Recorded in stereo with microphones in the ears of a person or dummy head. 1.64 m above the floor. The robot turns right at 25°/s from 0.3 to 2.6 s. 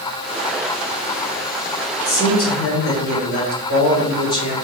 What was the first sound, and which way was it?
A man speaking, 65° left (ahead or behind).